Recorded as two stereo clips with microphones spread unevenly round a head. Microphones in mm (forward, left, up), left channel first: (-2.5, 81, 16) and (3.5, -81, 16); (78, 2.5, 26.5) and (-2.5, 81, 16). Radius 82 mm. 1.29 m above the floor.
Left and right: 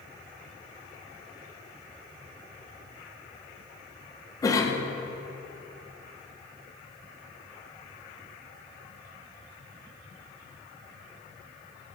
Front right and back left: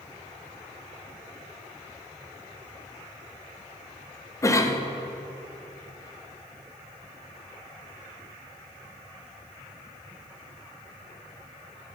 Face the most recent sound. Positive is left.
turn(degrees=20)